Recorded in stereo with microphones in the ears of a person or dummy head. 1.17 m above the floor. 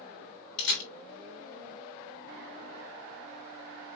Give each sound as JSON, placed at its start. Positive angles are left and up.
{"t": 0.6, "sound": "a camera shutter", "side_deg": 70, "distance_m": 2.5}